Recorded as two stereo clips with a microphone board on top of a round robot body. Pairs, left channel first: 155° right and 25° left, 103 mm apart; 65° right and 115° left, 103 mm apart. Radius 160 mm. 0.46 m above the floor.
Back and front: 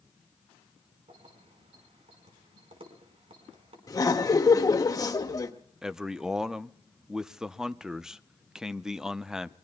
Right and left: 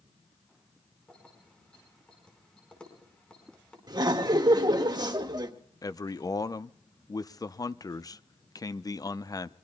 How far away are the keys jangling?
About 4.5 m.